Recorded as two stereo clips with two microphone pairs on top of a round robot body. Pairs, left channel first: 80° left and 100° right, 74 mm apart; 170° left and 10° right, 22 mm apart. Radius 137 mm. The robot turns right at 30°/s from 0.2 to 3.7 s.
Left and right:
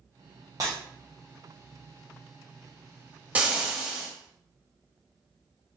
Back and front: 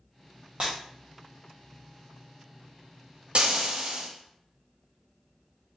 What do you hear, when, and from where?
0.6 s breaking glass: 115° right, 0.6 m; by 0.7 s 110° right, 0.6 m
3.4 s frying: 30° right, 1.0 m; by 4.1 s 20° right, 1.0 m